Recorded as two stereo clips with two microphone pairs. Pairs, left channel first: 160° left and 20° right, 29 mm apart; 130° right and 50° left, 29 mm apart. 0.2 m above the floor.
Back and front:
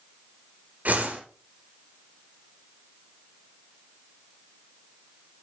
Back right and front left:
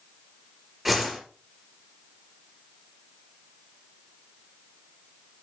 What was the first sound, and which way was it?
A whoosh, 35° right.